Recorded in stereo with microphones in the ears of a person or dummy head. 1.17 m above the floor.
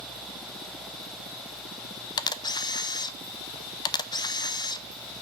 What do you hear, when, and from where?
2.2 s a camera shutter: 20° left (ahead or behind), 0.6 m